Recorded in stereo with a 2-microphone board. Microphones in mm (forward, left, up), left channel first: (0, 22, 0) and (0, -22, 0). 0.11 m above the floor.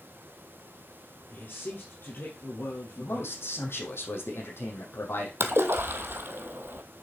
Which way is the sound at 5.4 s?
60° right (ahead or behind).